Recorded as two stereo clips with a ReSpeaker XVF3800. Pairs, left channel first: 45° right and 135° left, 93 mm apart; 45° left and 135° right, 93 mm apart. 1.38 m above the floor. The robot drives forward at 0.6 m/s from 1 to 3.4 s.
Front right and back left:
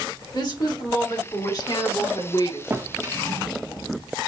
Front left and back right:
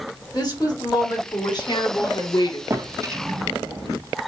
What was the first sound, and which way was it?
A woman speaking, straight ahead.